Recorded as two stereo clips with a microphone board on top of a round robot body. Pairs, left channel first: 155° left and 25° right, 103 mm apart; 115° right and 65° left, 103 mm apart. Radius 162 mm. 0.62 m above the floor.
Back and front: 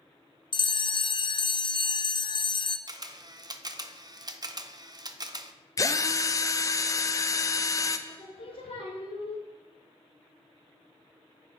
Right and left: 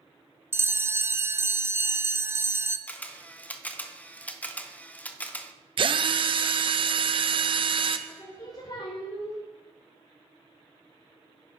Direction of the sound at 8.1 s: 165° right.